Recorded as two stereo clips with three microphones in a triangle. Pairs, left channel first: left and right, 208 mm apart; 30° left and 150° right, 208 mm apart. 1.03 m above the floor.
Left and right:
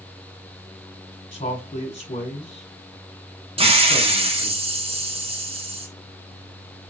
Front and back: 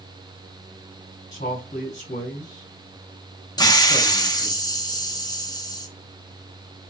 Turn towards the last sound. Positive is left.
turn(degrees=-40)